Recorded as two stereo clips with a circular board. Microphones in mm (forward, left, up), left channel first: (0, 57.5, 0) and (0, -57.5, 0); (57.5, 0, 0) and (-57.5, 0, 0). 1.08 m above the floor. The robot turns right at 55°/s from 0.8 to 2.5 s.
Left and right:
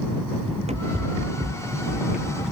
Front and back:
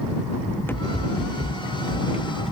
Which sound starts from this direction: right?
Running footsteps, at 0.5 s.